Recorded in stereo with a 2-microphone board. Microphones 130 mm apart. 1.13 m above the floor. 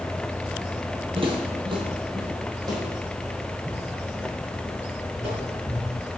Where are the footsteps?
45° right (ahead or behind), 1.6 m; by 5.8 s 20° right (ahead or behind), 4.5 m.